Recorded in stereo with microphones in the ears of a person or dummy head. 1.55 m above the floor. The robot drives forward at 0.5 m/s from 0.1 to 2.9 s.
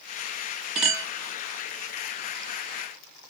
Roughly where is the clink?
Centre.